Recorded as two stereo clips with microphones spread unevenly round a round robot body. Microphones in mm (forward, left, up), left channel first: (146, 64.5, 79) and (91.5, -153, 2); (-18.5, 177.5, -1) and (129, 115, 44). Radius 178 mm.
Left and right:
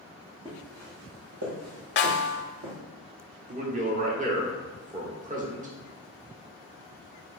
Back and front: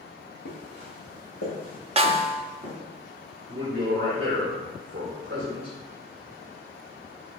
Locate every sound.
0.5 s footsteps: 170° left, 1.2 m; by 2.8 s 115° right, 1.6 m
2.0 s a snare drum: 35° left, 0.5 m
3.5 s a man speaking: 90° right, 0.9 m